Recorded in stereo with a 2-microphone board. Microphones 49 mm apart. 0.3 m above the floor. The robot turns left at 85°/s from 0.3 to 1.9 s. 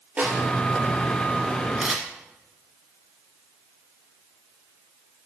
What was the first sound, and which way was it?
A snare drum, 30° right (ahead or behind).